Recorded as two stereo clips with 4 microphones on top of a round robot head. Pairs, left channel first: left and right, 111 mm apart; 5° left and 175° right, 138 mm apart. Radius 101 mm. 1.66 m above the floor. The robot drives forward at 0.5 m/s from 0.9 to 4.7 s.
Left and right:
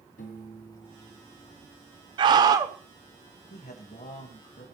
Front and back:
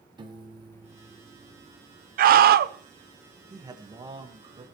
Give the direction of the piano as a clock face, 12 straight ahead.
8 o'clock.